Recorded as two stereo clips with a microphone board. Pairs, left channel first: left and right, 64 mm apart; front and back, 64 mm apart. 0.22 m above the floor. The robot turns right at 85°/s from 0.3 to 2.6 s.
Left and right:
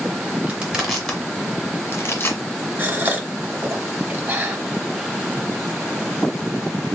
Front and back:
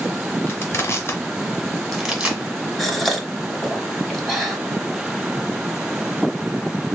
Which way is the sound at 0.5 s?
40° right.